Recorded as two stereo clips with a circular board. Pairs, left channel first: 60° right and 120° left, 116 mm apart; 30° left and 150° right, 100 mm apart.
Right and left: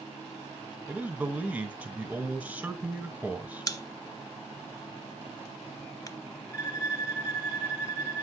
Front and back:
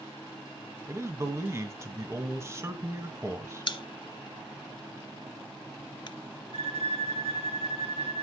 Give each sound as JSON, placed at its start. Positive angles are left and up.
{"t": 0.9, "sound": "a man speaking", "azimuth_deg": -175, "distance_m": 1.3}
{"t": 3.7, "sound": "a pop", "azimuth_deg": -5, "distance_m": 0.7}
{"t": 6.5, "sound": "a violin", "azimuth_deg": -130, "distance_m": 1.0}